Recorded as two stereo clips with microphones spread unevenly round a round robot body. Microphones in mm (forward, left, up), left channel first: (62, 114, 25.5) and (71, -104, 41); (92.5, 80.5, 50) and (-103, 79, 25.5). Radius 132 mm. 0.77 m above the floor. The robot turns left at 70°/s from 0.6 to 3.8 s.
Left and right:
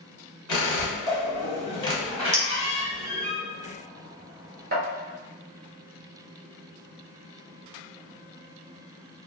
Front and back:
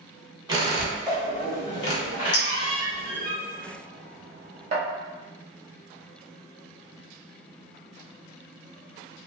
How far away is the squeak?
About 1.4 m.